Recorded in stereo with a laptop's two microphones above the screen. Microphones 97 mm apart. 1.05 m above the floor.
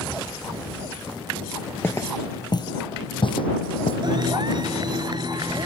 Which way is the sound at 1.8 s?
20° left (ahead or behind).